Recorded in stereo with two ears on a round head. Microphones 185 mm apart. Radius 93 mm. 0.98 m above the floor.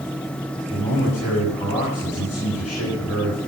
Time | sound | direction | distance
0.7 | a man speaking | 35° left (ahead or behind) | 6 m